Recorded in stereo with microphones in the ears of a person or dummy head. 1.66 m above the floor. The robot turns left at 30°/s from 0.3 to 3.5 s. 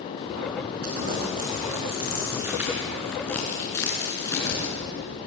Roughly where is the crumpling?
Right.